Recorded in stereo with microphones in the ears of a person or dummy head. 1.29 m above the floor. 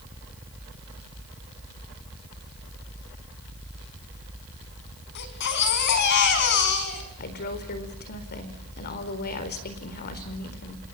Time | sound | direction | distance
5.2 | a baby crying | 60° left (ahead or behind) | 4 m
7.2 | a woman speaking | 55° left (ahead or behind) | 4.5 m